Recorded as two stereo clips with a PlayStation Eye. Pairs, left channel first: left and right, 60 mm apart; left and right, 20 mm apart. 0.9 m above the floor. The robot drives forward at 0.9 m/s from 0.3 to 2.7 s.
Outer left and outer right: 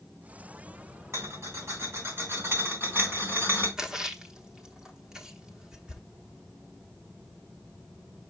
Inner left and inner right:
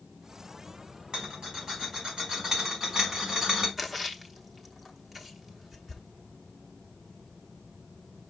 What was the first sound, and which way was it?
A rattle, 55° right (ahead or behind).